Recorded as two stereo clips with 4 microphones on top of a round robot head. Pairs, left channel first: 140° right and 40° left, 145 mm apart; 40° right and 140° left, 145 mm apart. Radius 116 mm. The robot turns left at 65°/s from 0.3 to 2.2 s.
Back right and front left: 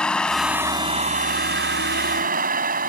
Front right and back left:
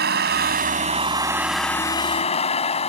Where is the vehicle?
135° left; by 2.9 s 10° left.